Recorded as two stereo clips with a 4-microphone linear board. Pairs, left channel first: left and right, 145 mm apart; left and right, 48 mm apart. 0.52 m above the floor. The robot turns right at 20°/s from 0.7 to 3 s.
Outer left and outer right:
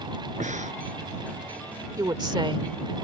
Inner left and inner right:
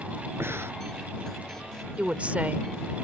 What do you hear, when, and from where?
0.4 s breathing: 55° right (ahead or behind)
2.0 s a woman speaking: 25° right (ahead or behind); by 2.7 s 35° right (ahead or behind)